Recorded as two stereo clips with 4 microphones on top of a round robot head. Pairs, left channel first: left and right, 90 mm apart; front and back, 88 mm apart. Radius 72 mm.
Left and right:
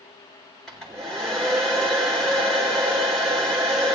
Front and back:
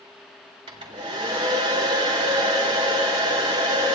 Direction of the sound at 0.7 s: 175° left.